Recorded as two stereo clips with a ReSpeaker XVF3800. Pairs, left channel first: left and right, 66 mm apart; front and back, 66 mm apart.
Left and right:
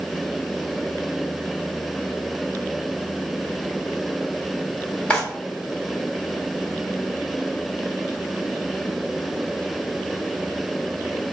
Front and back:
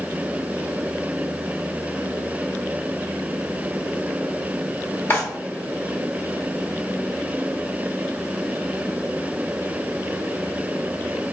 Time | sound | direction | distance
5.1 | a drawer | 35° left | 1.7 m